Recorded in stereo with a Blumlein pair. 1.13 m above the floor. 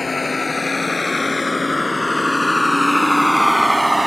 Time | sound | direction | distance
0.0 | a vehicle | 10° left | ?